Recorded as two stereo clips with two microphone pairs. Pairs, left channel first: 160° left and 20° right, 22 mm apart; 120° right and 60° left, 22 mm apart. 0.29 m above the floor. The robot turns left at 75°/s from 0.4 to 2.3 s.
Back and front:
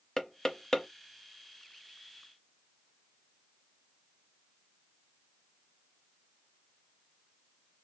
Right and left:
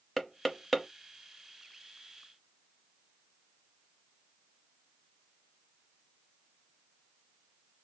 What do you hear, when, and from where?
0.2 s knocking: straight behind, 0.6 m; by 0.9 s 145° left, 0.6 m